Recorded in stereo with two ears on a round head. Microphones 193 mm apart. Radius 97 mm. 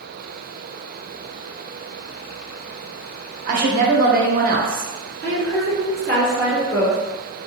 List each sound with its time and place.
3.5 s a woman speaking: 40° right (ahead or behind), 0.8 m
5.2 s a woman speaking: 15° left (ahead or behind), 1.9 m